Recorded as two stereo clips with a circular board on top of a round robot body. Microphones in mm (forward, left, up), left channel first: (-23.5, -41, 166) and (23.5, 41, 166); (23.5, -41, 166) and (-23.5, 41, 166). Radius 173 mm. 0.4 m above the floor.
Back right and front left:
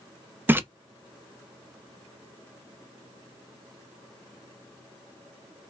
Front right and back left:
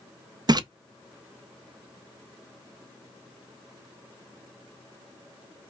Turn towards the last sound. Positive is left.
turn(degrees=120)